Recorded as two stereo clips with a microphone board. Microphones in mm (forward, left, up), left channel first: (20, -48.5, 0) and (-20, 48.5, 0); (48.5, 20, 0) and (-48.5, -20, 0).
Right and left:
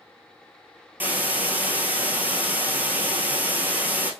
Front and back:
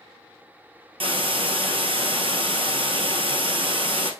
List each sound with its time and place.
1.0 s a hiss: 175° right, 1.4 m